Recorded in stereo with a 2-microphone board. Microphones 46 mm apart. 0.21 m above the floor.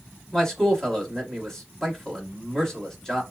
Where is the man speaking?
15° left (ahead or behind), 1.0 m.